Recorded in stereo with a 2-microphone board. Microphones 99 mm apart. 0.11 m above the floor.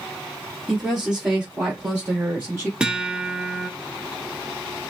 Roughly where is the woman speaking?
Centre.